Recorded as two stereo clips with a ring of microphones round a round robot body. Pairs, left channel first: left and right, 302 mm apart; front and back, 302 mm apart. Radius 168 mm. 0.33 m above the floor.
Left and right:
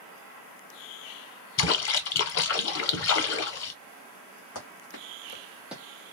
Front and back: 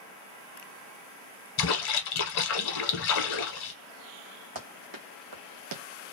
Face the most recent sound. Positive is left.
turn(degrees=-165)